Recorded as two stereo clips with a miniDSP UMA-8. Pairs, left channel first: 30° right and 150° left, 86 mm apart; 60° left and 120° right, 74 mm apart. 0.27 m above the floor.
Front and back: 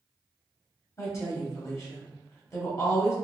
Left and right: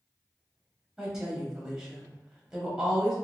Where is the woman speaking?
45° right, 1.2 m.